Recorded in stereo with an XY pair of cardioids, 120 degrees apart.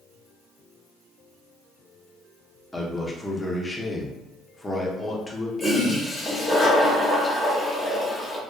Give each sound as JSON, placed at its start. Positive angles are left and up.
{"t": 2.7, "sound": "a man speaking", "azimuth_deg": 15, "distance_m": 0.6}
{"t": 5.6, "sound": "a toilet flushing", "azimuth_deg": 20, "distance_m": 0.8}